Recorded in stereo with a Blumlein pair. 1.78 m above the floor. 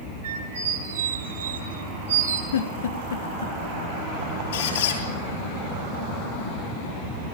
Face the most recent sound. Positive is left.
turn(degrees=60)